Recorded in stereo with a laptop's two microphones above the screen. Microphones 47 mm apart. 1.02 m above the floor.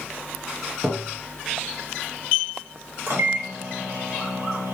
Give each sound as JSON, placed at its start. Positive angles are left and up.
{"t": 0.8, "sound": "tapping", "side_deg": -35, "distance_m": 1.0}
{"t": 3.1, "sound": "a microwave", "side_deg": -60, "distance_m": 1.1}